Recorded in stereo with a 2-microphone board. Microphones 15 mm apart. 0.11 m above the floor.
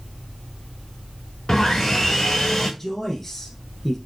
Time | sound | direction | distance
1.5 | sawing | 40° left (ahead or behind) | 6 m
2.8 | a man speaking | 15° left (ahead or behind) | 4.5 m